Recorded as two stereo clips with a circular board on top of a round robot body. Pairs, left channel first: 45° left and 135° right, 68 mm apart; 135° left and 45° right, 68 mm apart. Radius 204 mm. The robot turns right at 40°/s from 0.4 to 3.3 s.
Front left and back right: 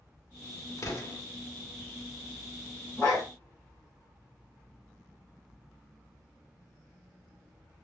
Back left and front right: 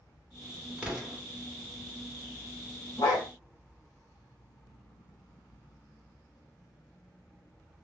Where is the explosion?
25° left, 1.6 m; by 1.2 s 40° left, 1.6 m.